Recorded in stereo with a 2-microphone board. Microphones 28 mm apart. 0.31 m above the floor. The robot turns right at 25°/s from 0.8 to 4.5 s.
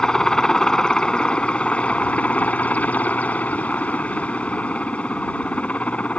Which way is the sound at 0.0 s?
25° left.